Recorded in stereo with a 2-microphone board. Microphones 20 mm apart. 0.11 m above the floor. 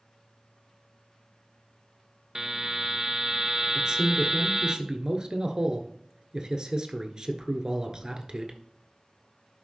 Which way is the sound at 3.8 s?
40° right (ahead or behind).